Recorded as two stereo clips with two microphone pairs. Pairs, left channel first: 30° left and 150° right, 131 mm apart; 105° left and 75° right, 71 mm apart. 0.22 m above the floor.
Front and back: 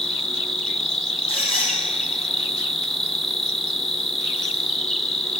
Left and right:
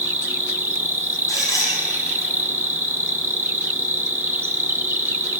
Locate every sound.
0.0 s an insect: 50° right, 1.2 m
1.3 s a squeak: 150° left, 4 m